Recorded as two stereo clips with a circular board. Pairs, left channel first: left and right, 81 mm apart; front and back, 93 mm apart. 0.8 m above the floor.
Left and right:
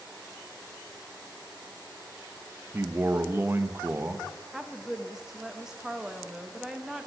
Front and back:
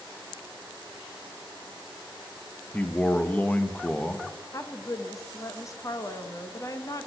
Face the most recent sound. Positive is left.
turn(degrees=-10)